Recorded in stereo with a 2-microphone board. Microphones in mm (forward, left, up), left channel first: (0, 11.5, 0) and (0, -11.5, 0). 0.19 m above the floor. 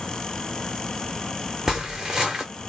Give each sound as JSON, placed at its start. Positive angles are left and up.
{"t": 1.7, "sound": "footsteps", "side_deg": -20, "distance_m": 0.9}